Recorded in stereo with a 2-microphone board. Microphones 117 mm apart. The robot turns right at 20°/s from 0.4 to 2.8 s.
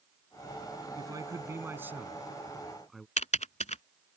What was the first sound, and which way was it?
A man speaking, 35° right.